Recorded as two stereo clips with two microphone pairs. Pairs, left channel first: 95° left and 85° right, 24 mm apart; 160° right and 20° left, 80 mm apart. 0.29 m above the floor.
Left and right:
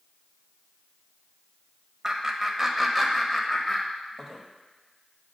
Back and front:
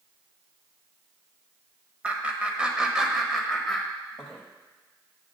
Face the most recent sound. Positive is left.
turn(degrees=125)